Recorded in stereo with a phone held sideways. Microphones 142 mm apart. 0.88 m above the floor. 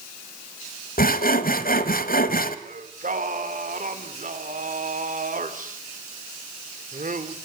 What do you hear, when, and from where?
1.0 s sawing: 75° left (ahead or behind), 1.6 m
2.6 s singing: 60° right (ahead or behind), 2.5 m